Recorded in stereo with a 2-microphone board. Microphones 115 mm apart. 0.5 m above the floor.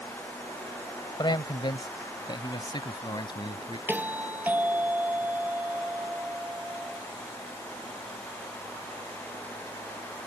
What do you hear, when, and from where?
1.2 s a man speaking: 40° left (ahead or behind)
3.9 s a doorbell: 15° right (ahead or behind)